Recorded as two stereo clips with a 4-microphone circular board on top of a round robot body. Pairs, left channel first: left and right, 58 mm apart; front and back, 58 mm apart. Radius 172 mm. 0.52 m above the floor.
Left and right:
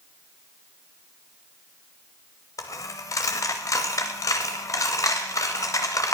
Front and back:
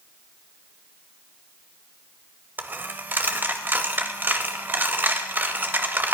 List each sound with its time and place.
2.6 s a dropped coin: 120° left, 0.5 m